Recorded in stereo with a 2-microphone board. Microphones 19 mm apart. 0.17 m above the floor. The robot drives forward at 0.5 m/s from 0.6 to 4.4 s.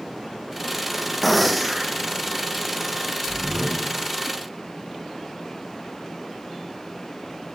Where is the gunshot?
Centre (ahead or behind), 1.4 m.